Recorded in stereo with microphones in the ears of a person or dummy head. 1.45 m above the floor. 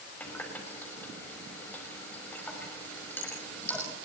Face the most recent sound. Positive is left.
turn(degrees=10)  # may be behind; listen again after turning